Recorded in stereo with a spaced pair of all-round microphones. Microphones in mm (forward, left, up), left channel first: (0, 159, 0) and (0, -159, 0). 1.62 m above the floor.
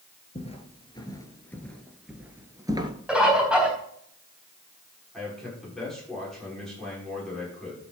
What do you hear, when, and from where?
0.3 s footsteps: 20° left (ahead or behind), 1.8 m; by 2.9 s 15° right (ahead or behind), 1.6 m
3.1 s a bird: 5° right (ahead or behind), 3.5 m
5.1 s a man speaking: centre (ahead or behind), 6 m